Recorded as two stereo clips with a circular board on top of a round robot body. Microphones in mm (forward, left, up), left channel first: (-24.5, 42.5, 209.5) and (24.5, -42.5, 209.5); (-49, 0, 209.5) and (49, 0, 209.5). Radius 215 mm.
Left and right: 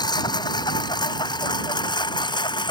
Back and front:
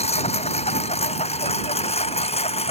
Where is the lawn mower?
170° left; by 2.7 s 165° left.